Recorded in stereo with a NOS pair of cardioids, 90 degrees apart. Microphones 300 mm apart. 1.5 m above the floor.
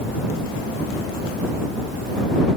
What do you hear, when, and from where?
Only background noise.